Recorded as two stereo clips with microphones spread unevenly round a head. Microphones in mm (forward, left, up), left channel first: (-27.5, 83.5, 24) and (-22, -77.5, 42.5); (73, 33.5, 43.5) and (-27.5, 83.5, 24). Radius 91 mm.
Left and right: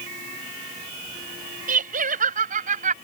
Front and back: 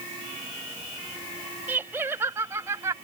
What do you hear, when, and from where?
1.7 s laughter: 125° right; by 3.0 s 130° right